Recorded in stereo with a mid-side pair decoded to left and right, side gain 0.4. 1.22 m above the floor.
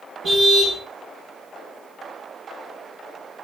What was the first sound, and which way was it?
A car horn, 55° right.